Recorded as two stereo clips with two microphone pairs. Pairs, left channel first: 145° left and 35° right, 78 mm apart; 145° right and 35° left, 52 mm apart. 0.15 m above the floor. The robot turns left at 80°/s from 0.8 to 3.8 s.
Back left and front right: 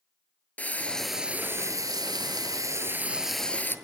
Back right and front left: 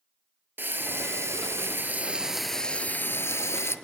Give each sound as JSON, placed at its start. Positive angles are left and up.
{"t": 0.6, "sound": "frying", "azimuth_deg": 75, "distance_m": 1.0}